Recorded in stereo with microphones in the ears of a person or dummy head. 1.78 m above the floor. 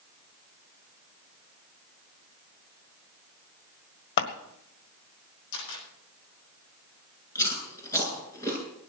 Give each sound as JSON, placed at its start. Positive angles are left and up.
{"t": 4.2, "sound": "scissors", "side_deg": 60, "distance_m": 1.7}
{"t": 5.5, "sound": "a camera shutter", "side_deg": 75, "distance_m": 10.0}
{"t": 7.3, "sound": "chewing", "side_deg": 20, "distance_m": 7.5}